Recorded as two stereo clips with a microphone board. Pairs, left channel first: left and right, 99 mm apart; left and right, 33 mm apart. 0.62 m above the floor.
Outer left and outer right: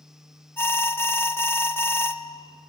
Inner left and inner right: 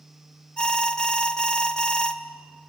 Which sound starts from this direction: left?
An alarm, at 0.6 s.